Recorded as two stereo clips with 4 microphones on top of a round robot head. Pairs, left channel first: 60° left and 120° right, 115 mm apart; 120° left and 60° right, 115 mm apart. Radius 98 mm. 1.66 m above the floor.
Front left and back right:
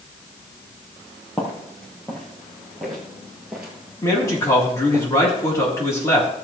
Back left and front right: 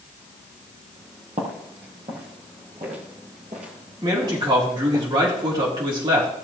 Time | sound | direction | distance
1.4 | footsteps | 20° right | 3 m
4.0 | a man speaking | 5° right | 3.5 m